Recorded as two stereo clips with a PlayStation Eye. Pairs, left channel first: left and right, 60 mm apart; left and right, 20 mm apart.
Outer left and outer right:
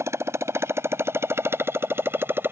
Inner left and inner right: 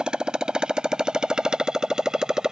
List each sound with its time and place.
0.0 s a motorcycle: 50° right (ahead or behind); by 2.5 s 35° right (ahead or behind)